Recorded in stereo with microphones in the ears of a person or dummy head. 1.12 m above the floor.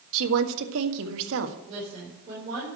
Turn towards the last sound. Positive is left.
turn(degrees=-35)  # may be behind; listen again after turning